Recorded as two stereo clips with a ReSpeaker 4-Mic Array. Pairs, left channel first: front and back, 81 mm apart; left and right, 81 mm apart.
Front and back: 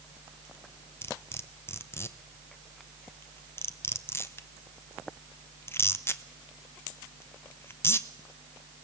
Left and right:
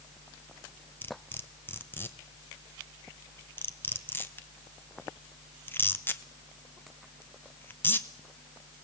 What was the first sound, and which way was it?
Cutlery clinking, 40° left.